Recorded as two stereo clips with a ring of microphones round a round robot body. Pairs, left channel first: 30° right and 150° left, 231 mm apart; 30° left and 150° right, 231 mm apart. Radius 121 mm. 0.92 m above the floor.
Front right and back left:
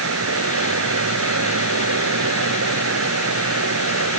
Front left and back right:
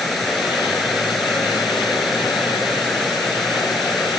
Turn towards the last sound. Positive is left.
turn(degrees=120)